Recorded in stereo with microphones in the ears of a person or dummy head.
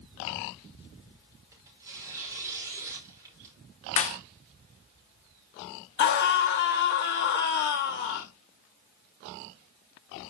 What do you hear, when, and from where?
1.5 s tearing paper: 15° right (ahead or behind), 4 m
4.0 s a clap: 40° left (ahead or behind), 0.9 m
6.0 s a scream: 55° left (ahead or behind), 1.3 m